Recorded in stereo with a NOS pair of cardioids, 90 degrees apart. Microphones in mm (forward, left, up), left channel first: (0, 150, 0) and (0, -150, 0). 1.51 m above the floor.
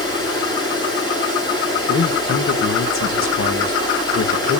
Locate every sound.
0.0 s running water: 15° left, 8.5 m
1.9 s a man speaking: 45° left, 1.8 m